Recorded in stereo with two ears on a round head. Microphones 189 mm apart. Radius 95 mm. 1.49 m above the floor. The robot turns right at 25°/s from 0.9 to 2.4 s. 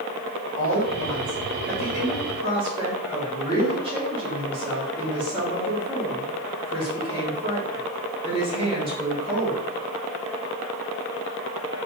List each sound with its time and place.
0.6 s a woman speaking: 60° right, 2.5 m; by 9.7 s 25° right, 2.5 m